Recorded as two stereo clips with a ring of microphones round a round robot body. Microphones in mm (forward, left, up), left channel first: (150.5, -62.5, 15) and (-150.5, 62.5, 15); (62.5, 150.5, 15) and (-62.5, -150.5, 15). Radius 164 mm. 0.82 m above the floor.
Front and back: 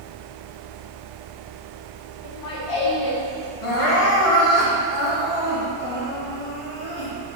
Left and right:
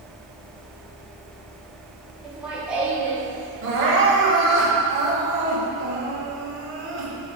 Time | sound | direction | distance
2.2 | laughter | 25° right | 2 m
3.6 | crying | 55° right | 2.5 m